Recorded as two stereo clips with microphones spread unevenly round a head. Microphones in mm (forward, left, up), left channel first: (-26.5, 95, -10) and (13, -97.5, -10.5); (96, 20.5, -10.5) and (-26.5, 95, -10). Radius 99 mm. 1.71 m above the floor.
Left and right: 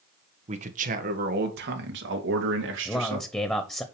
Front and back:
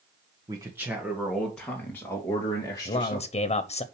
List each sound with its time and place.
0.5 s a man speaking: 135° right, 1.6 m; by 3.3 s 100° right, 3.5 m
2.9 s a man speaking: 20° left, 0.9 m